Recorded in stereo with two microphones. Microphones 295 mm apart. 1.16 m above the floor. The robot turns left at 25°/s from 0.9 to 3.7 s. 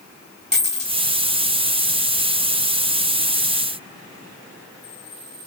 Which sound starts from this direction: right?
A dropped coin, at 0.5 s.